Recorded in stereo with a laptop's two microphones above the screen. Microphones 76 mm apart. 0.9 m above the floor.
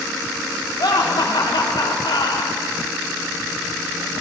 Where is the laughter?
75° left (ahead or behind), 1.7 m.